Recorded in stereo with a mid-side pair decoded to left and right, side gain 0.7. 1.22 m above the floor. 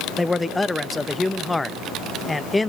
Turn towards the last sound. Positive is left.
turn(degrees=5)